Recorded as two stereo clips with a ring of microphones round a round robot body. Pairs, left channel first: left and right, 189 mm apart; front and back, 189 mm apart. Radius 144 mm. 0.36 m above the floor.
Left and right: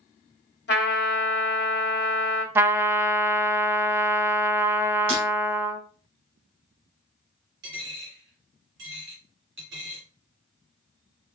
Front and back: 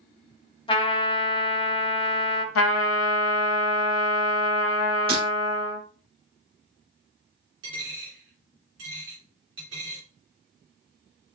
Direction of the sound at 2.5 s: 10° right.